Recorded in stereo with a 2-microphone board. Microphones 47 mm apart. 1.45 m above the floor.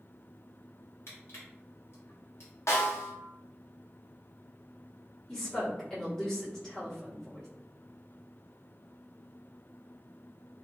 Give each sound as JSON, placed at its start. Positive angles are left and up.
{"t": 1.1, "sound": "crushing", "side_deg": 60, "distance_m": 1.3}
{"t": 2.7, "sound": "a snare drum", "side_deg": 75, "distance_m": 0.7}
{"t": 5.3, "sound": "a woman speaking", "side_deg": 10, "distance_m": 1.3}